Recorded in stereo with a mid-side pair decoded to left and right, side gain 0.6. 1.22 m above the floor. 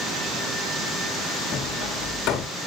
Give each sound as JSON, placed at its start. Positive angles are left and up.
{"t": 1.5, "sound": "hammering", "azimuth_deg": 65, "distance_m": 2.0}